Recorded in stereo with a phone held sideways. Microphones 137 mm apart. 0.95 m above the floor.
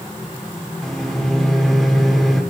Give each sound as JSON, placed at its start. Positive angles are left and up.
{"t": 0.8, "sound": "a microwave", "side_deg": 0, "distance_m": 2.5}